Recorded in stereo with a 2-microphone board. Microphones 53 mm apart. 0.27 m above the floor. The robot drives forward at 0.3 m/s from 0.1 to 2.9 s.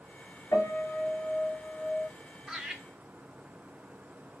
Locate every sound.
0.5 s a piano: 75° left (ahead or behind), 2 m; by 2.1 s 70° left (ahead or behind), 2 m
2.5 s laughter: 5° right (ahead or behind), 0.9 m